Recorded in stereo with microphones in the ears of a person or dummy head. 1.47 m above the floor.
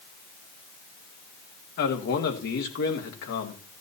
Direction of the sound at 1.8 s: 60° left (ahead or behind).